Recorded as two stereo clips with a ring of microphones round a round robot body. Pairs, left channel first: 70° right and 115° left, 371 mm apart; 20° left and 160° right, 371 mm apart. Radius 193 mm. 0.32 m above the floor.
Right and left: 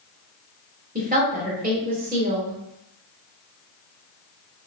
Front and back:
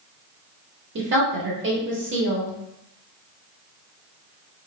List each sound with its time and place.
0.9 s a woman speaking: 165° left, 1.4 m